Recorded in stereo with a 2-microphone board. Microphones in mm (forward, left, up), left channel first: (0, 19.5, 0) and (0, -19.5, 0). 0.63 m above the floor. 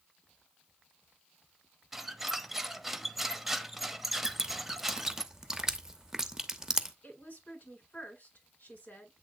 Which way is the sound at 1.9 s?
10° right (ahead or behind).